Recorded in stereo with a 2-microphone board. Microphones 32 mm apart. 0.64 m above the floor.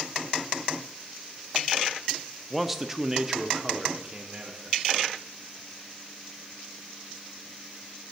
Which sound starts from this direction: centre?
A man speaking, at 2.5 s.